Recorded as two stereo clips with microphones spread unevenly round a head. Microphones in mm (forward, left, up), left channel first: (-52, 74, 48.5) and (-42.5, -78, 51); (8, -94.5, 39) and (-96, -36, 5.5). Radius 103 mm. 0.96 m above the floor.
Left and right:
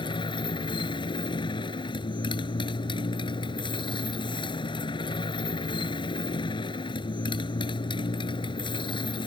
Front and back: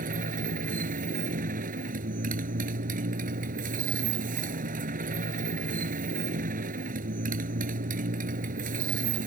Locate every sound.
0.0 s a motorcycle: 155° left